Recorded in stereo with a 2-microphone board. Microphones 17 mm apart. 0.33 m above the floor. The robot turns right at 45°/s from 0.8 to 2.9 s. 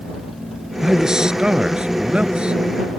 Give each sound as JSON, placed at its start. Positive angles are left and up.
{"t": 0.8, "sound": "a man speaking", "azimuth_deg": -150}